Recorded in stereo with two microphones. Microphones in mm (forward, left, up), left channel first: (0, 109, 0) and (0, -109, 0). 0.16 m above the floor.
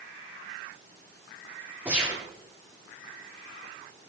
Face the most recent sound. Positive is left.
turn(degrees=-5)  # may be behind; listen again after turning